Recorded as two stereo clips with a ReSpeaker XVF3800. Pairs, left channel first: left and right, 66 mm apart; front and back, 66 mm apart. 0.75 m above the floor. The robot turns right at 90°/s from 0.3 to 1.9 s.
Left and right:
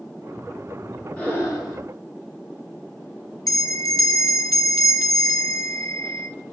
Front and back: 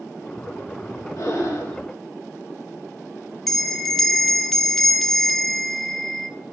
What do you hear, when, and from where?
1.2 s breathing: 20° left, 3.5 m; by 1.8 s 75° left, 3.5 m
3.5 s a bell: 85° left, 1.0 m